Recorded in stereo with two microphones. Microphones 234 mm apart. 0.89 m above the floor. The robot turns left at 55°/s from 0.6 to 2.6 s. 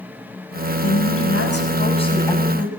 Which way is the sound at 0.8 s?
90° left.